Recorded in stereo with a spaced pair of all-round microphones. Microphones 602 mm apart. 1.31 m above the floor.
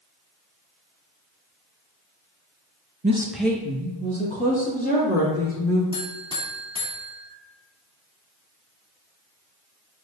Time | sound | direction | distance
3.0 | a woman speaking | 15° right (ahead or behind) | 0.7 m
5.9 | a buzzer | 10° right (ahead or behind) | 2.5 m